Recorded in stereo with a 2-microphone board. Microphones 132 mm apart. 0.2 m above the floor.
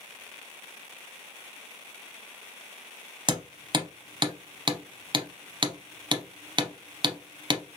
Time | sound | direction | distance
3.3 | hammering | 35° right (ahead or behind) | 0.6 m